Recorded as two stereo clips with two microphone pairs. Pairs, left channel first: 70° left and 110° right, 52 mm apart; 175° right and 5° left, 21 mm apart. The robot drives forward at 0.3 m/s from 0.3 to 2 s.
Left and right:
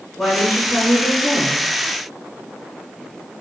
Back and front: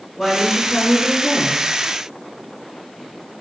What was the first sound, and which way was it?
A woman speaking, 130° left.